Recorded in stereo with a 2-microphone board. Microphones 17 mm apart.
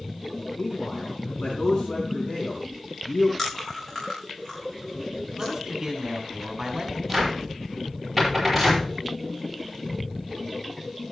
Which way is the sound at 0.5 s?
80° left.